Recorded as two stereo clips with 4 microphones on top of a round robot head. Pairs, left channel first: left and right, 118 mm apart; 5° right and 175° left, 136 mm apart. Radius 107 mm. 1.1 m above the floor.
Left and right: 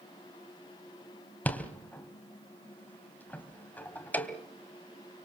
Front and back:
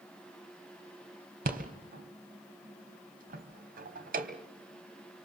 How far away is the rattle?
About 3 m.